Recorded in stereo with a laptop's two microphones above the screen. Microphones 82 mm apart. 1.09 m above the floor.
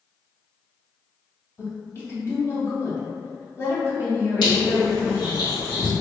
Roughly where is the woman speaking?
Left.